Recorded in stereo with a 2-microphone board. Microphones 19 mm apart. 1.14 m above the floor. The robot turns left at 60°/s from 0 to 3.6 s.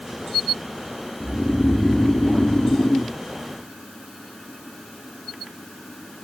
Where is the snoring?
Straight behind; by 3.2 s 65° left.